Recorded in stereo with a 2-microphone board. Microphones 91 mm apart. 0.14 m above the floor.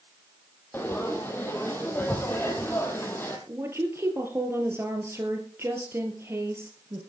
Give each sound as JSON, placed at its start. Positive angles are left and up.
{"t": 0.7, "sound": "frying", "side_deg": 20, "distance_m": 2.5}
{"t": 3.5, "sound": "a woman speaking", "side_deg": -30, "distance_m": 3.0}